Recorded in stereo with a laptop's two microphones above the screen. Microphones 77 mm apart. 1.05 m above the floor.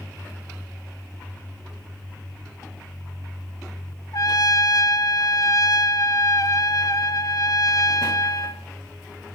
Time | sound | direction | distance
4.1 | a trumpet | 55° left (ahead or behind) | 1.3 m